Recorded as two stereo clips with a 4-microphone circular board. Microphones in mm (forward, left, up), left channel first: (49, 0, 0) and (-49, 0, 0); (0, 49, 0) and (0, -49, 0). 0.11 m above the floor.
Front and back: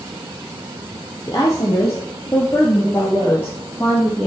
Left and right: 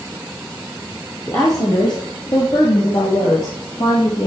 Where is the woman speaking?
40° left, 2 m; by 4.3 s 80° left, 4 m.